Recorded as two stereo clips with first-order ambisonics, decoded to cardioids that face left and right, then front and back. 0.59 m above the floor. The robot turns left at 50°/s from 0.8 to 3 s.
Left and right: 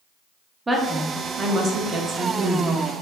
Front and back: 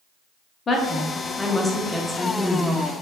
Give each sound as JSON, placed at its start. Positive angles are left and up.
{"t": 0.7, "sound": "a woman speaking", "azimuth_deg": -25, "distance_m": 0.6}